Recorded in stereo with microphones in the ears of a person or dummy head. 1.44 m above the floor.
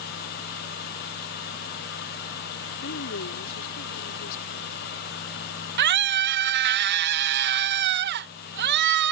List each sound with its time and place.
2.8 s a woman speaking: 70° left (ahead or behind)
5.8 s a scream: 55° right (ahead or behind)